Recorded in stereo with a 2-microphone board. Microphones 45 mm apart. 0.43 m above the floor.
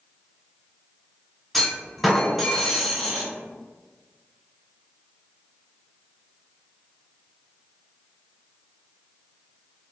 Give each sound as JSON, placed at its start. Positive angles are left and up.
{"t": 1.5, "sound": "a clunk", "side_deg": 5, "distance_m": 1.2}